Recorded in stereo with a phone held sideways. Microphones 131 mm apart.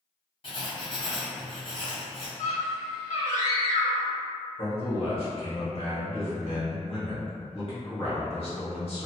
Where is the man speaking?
50° left (ahead or behind), 1.2 m.